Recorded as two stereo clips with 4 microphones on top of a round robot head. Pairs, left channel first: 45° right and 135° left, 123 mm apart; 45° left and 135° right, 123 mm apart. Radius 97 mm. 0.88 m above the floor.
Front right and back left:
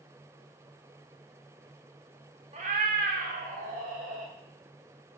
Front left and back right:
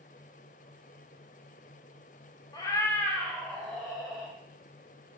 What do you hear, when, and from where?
2.5 s a cat meowing: 100° left, 0.6 m; by 4.3 s 140° left, 1.5 m